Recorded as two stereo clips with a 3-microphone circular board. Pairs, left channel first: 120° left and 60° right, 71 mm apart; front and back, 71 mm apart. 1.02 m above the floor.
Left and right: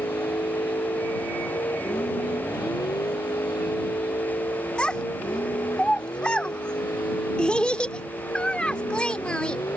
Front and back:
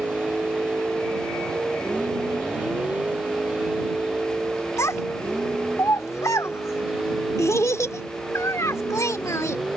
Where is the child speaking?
45° left.